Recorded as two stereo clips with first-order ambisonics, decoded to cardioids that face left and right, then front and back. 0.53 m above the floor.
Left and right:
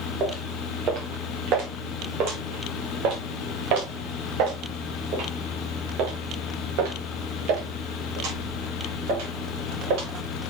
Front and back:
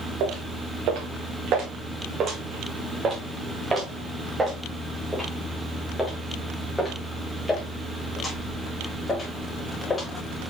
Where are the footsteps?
150° right, 2.5 m; by 10.1 s 80° right, 5.5 m.